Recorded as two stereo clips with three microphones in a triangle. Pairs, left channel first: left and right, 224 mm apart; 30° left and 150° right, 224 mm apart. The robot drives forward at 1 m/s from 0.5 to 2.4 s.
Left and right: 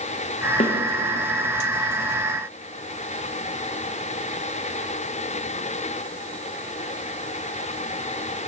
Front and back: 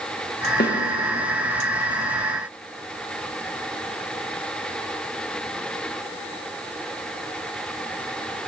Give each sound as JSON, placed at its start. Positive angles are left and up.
{"t": 0.6, "sound": "a snare drum", "azimuth_deg": 45, "distance_m": 0.6}